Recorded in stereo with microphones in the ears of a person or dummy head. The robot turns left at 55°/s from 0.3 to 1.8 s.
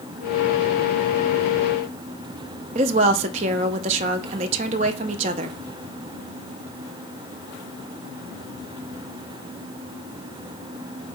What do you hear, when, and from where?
2.8 s a woman speaking: 35° right (ahead or behind), 0.5 m